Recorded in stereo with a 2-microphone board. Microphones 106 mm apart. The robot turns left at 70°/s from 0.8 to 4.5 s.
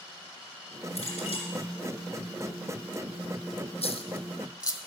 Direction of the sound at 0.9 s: 105° left.